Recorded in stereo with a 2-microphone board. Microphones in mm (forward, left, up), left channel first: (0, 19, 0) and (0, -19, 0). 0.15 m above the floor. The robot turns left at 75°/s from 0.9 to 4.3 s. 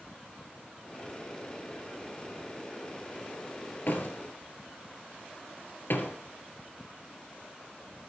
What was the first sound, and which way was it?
A door slam, 50° left (ahead or behind).